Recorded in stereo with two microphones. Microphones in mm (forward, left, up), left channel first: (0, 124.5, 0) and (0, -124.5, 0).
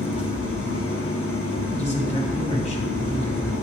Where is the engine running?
65° left (ahead or behind), 1.5 m.